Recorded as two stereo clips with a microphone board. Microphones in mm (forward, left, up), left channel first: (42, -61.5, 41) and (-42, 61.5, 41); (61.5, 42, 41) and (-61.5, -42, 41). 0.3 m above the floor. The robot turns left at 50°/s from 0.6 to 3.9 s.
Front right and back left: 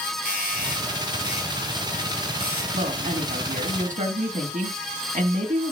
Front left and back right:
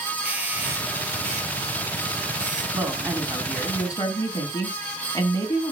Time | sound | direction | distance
0.2 | a doorbell | 65° right | 4 m
2.7 | a woman speaking | 155° left | 3 m